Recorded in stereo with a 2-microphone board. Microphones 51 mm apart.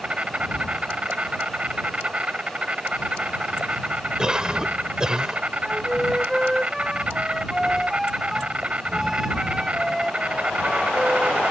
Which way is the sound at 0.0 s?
25° right (ahead or behind).